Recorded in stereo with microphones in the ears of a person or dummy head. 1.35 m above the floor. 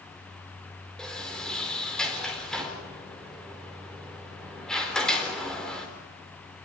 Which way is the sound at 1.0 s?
5° left (ahead or behind).